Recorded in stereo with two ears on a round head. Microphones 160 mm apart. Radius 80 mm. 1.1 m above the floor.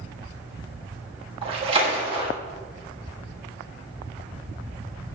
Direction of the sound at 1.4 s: 30° right (ahead or behind).